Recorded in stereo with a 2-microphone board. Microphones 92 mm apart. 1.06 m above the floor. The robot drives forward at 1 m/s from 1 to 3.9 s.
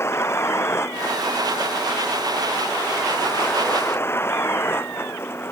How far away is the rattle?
No rattle in this recording.